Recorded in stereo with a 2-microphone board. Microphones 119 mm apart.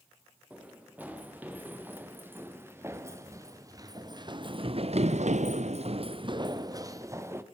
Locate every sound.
0.5 s running footsteps: 15° right (ahead or behind), 5.5 m; by 7.4 s 20° right (ahead or behind), 2.5 m